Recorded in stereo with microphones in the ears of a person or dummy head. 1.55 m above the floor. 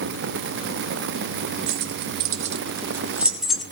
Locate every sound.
1.7 s keys jangling: 65° right (ahead or behind), 1.3 m; by 3.6 s 5° left (ahead or behind), 1.5 m